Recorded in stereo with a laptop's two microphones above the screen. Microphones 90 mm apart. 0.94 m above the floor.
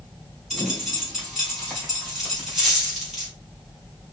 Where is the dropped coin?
5° right (ahead or behind), 2 m.